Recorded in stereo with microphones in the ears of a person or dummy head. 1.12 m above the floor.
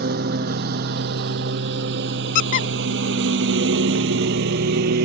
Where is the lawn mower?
65° right (ahead or behind).